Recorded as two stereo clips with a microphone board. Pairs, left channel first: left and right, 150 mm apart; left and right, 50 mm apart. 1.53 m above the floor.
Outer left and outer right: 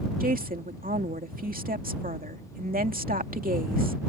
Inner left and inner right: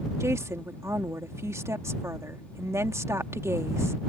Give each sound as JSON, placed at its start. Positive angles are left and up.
{"t": 0.2, "sound": "a woman speaking", "side_deg": -70}